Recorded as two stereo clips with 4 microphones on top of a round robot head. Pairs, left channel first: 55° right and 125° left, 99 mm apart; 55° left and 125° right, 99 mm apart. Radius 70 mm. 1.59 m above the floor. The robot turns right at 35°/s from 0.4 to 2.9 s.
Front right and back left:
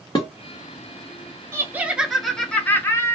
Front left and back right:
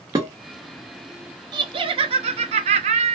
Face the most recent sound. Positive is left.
turn(degrees=-120)